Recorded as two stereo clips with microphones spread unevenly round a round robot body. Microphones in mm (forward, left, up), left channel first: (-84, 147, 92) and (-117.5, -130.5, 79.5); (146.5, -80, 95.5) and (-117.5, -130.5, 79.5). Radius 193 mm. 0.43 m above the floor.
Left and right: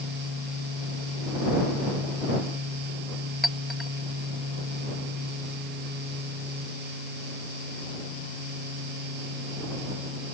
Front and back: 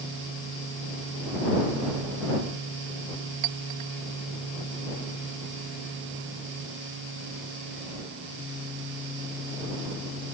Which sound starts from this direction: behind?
A clink, at 3.4 s.